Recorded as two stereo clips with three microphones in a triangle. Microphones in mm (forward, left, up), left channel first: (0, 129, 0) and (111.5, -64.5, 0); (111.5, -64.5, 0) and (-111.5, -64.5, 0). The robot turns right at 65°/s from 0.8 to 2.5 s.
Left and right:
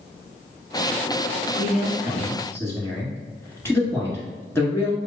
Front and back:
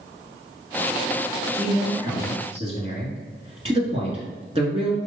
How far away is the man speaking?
About 1.5 m.